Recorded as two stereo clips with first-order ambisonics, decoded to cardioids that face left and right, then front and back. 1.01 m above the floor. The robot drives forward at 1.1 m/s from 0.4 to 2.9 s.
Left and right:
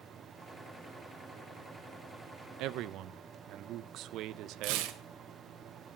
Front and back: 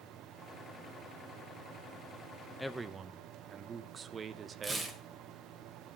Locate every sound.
2.6 s a man speaking: 80° right, 0.6 m; by 4.9 s 115° right, 0.7 m
4.6 s tearing paper: 100° right, 1.6 m